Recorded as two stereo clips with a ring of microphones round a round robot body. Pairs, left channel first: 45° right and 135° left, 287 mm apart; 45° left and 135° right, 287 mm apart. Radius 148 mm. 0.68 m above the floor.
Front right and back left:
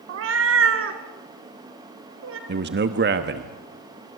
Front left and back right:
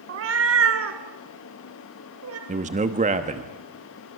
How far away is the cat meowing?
About 1.0 m.